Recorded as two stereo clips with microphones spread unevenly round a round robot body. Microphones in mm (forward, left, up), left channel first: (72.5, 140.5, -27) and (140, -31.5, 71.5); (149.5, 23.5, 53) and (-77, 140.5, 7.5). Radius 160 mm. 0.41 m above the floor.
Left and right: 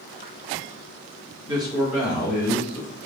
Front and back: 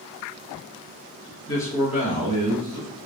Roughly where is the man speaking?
Ahead left.